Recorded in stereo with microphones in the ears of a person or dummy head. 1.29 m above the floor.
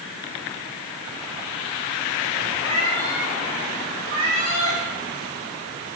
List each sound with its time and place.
2.6 s a cat meowing: 30° right (ahead or behind), 1.3 m; by 4.8 s 35° right (ahead or behind), 2.5 m